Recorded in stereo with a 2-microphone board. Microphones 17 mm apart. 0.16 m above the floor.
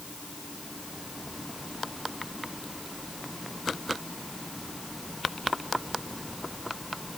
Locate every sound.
Only background noise.